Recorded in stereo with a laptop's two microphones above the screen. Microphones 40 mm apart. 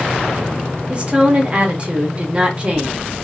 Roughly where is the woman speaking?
Right.